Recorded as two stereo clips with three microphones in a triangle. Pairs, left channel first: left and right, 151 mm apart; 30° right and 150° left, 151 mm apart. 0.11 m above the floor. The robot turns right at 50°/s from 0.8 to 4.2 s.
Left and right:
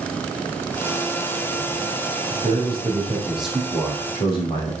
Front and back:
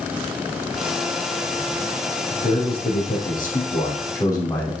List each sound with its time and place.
2.3 s a man speaking: 60° right, 5.5 m; by 4.7 s 35° left, 5.5 m